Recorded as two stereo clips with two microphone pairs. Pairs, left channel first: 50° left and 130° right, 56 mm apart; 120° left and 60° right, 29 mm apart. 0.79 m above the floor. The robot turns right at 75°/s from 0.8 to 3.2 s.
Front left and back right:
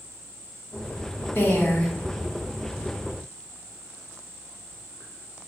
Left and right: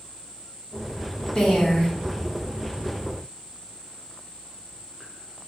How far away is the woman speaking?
About 1.2 m.